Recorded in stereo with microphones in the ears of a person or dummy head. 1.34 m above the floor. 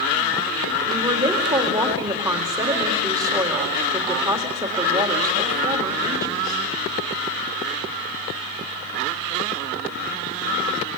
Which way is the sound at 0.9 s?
15° right (ahead or behind).